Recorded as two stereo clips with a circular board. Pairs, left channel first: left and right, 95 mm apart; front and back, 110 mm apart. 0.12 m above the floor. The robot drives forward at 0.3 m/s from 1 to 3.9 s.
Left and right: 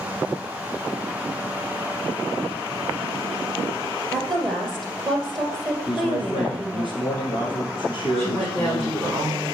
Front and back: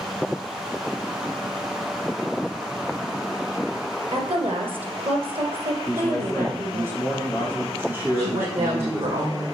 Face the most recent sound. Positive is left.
turn(degrees=170)